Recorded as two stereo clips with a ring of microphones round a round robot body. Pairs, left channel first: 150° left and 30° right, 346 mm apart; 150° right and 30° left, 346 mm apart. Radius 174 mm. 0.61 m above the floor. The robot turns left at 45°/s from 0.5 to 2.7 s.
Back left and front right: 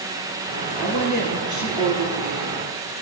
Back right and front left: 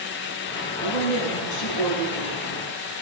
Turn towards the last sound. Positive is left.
turn(degrees=125)